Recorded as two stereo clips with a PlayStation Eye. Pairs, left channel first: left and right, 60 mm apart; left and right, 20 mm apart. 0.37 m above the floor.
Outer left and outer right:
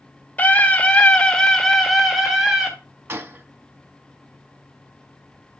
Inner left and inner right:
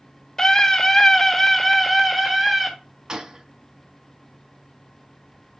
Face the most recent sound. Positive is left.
turn(degrees=-40)  # may be behind; listen again after turning